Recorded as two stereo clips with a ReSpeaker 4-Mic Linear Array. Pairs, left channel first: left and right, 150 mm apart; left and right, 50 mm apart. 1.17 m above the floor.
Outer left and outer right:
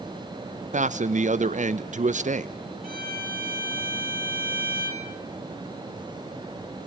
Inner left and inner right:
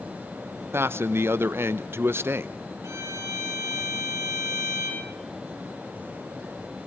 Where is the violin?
85° right, 4 m.